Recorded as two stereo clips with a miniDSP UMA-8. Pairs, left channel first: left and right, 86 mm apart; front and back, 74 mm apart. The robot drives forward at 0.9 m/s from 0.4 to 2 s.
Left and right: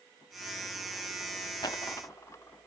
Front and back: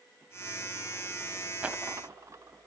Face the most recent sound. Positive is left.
turn(degrees=140)